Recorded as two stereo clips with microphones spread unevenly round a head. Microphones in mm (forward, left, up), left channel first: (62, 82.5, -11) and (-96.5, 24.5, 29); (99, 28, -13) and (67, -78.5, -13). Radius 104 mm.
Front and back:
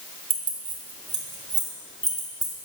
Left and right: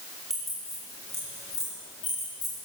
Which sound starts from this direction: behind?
Keys jangling, at 0.3 s.